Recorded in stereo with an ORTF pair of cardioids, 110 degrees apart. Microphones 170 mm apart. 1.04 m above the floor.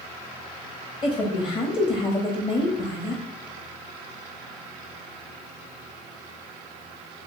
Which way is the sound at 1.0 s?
30° left.